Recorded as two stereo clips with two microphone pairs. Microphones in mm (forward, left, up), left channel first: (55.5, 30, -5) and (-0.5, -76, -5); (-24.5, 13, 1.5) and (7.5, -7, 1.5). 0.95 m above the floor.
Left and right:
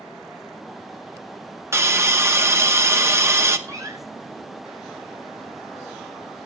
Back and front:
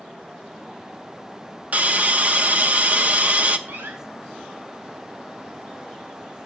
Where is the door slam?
55° right, 5.5 m.